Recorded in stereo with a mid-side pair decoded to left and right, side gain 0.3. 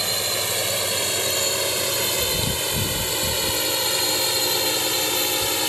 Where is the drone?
10° right; by 5.7 s 15° left.